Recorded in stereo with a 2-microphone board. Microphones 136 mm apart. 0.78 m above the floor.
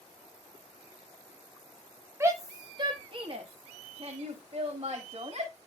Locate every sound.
2.2 s a shout: 20° right (ahead or behind), 0.9 m; by 5.5 s 50° right (ahead or behind), 2 m